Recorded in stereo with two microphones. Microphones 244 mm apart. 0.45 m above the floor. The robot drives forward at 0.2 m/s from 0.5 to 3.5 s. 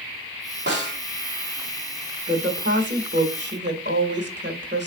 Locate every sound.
0.7 s a snare drum: 45° right (ahead or behind), 1.6 m
2.3 s a woman speaking: 45° right (ahead or behind), 1.1 m